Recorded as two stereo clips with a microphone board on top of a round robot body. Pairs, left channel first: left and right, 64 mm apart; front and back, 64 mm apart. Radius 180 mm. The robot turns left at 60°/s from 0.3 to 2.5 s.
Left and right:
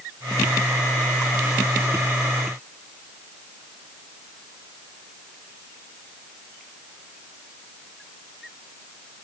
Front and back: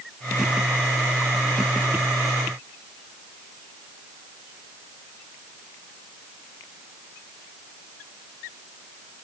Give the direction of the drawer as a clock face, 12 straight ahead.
I don't hear a drawer.